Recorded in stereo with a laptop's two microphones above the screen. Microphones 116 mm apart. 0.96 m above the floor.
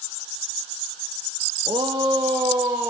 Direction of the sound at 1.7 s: 40° right (ahead or behind).